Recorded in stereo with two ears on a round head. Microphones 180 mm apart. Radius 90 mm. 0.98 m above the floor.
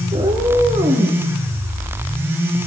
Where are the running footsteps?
No running footsteps in this recording.